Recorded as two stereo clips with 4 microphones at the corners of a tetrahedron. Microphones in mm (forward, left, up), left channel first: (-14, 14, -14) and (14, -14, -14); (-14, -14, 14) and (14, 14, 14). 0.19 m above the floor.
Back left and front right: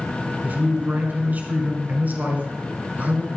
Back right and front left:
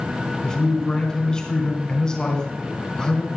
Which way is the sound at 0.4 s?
70° right.